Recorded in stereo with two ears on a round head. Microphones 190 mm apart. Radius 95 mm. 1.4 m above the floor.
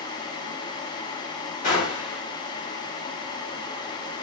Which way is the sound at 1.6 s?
40° left (ahead or behind).